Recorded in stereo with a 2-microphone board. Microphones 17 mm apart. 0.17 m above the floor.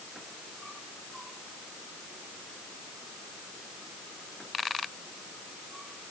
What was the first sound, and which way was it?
Only background noise.